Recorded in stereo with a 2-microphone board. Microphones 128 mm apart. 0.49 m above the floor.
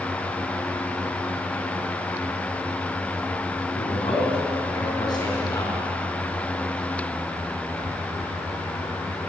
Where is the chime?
I don't hear a chime.